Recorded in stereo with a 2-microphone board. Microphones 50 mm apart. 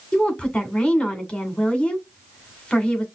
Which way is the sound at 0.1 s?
20° left (ahead or behind).